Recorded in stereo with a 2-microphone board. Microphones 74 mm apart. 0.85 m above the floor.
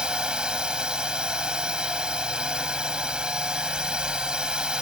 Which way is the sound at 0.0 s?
10° right (ahead or behind).